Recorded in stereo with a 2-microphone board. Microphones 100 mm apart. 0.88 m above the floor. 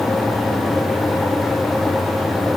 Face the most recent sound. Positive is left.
No sound to turn to.